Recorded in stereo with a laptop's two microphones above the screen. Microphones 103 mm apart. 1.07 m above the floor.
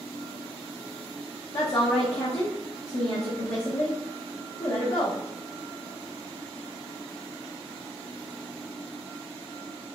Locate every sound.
1.5 s a woman speaking: 70° left (ahead or behind), 0.7 m